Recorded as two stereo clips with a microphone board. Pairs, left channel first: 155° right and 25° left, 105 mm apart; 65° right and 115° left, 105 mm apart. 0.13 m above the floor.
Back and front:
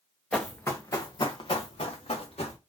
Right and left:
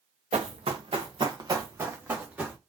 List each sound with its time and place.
0.3 s running footsteps: 120° left, 1.1 m; by 2.6 s 170° right, 1.8 m